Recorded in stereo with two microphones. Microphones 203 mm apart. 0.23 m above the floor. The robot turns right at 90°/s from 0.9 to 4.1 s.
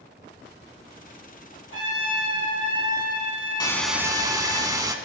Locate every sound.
1.7 s a trumpet: 80° right, 3.5 m; by 4.6 s 135° left, 3.5 m
3.6 s a hiss: 155° left, 0.7 m; by 5.0 s 160° right, 0.7 m